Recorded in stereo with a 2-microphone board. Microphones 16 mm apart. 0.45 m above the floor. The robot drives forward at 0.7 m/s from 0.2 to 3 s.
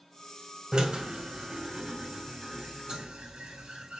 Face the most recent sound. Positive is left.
turn(degrees=-75)  # may be behind; listen again after turning